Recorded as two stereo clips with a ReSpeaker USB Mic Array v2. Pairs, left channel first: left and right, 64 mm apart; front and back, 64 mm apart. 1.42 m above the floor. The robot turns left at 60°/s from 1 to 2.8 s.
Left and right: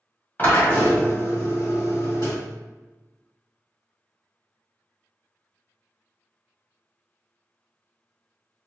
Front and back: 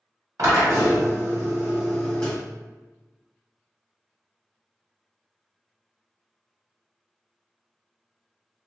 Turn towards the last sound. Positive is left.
turn(degrees=40)